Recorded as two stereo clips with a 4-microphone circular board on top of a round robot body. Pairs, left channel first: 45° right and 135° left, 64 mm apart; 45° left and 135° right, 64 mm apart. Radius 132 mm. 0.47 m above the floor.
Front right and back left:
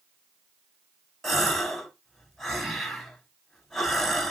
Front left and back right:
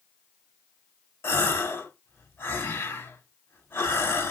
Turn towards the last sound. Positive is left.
turn(degrees=40)